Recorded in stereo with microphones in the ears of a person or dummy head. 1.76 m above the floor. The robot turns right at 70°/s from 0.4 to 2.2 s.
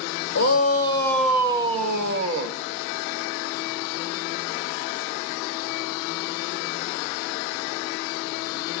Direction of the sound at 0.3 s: 120° left.